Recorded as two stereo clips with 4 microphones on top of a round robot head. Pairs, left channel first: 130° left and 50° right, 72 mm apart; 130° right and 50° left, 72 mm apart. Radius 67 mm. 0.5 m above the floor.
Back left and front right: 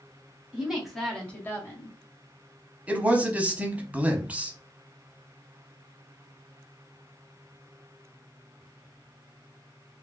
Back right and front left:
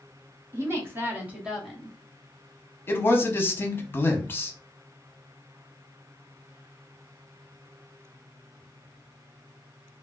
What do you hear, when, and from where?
0.5 s a woman speaking: 20° left, 1.4 m; by 2.0 s 145° left, 1.3 m
2.9 s a man speaking: 105° right, 0.9 m